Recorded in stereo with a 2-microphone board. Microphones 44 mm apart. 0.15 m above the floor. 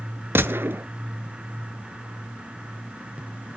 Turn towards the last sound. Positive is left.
turn(degrees=-65)  # may be behind; listen again after turning